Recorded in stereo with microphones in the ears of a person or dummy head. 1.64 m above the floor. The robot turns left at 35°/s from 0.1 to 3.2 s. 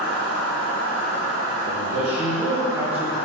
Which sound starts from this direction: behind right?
A man speaking, at 1.6 s.